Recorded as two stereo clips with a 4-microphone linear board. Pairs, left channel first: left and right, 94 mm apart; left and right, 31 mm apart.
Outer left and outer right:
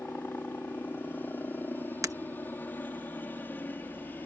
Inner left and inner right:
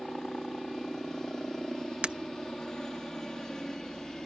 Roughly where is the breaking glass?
Right.